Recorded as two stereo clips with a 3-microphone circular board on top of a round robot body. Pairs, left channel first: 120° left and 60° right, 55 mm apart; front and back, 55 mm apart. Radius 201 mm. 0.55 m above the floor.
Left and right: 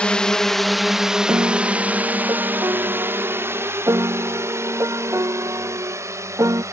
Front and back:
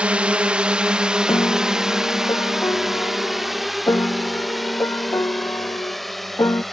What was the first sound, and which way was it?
A drone, 155° left.